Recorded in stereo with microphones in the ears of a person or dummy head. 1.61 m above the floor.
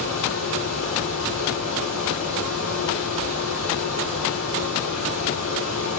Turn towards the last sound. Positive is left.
turn(degrees=-55)  # may be behind; listen again after turning